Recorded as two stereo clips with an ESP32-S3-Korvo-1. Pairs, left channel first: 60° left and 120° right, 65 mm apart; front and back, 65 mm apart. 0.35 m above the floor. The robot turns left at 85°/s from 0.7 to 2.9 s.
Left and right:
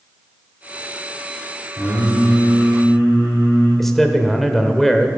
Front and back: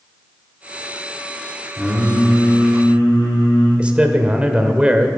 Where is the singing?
100° left, 5 m; by 3.7 s straight ahead, 5 m.